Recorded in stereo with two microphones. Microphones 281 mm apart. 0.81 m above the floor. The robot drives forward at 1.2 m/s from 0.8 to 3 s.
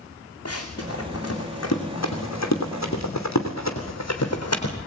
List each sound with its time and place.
0.5 s running footsteps: 55° left (ahead or behind), 3.5 m